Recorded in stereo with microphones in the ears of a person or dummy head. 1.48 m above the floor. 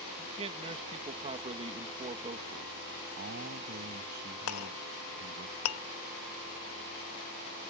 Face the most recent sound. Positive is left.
turn(degrees=80)